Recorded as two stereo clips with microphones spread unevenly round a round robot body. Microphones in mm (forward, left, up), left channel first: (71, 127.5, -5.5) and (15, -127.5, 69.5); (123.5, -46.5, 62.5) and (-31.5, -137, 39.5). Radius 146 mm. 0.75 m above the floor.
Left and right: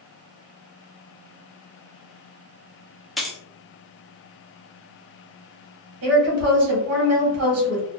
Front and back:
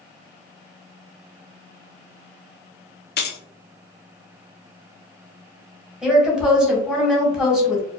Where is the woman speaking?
70° right, 1.2 m.